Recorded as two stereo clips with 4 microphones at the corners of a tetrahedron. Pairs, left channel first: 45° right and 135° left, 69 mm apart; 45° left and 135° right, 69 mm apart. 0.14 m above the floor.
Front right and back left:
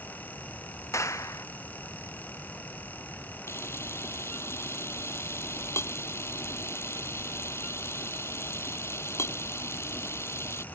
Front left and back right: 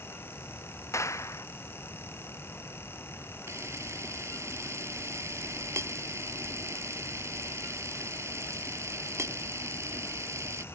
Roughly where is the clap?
Ahead.